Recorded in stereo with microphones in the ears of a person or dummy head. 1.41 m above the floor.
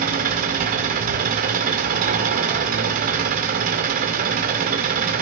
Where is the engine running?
45° right (ahead or behind), 1.9 m.